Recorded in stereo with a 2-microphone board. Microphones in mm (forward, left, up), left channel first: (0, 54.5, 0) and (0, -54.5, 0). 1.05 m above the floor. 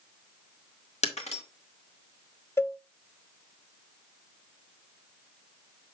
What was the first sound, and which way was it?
Breaking glass, 85° left.